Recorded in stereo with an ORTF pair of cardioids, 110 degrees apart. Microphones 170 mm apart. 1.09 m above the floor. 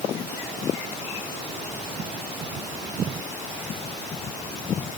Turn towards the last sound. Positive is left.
No sound to turn to.